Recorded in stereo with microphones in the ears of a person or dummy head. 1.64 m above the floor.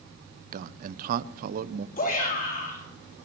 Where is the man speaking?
50° right (ahead or behind), 0.7 m.